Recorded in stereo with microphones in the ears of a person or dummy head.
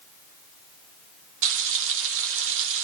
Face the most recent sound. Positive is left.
turn(degrees=-70)  # may be behind; listen again after turning